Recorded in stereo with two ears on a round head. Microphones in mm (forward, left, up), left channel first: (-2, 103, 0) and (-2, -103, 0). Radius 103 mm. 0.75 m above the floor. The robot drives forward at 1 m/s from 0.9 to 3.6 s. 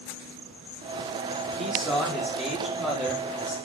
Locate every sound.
1.6 s a man speaking: centre (ahead or behind), 1.7 m